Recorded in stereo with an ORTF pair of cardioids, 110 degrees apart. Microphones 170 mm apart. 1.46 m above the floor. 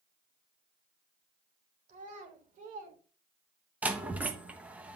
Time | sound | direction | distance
1.9 | a child speaking | 50° right | 3.5 m
3.8 | a door slam | 10° right | 1.2 m